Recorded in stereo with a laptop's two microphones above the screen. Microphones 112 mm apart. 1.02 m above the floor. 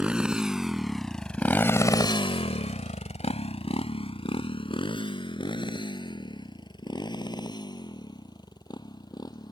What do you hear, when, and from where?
0.0 s a motorcycle: 10° right (ahead or behind); by 9.5 s 35° left (ahead or behind)